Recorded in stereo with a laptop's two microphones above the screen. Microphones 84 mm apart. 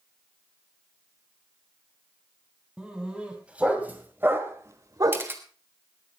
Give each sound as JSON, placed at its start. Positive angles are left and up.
{"t": 2.8, "sound": "a dog barking", "side_deg": -10, "distance_m": 3.0}
{"t": 5.1, "sound": "a camera shutter", "side_deg": -30, "distance_m": 1.2}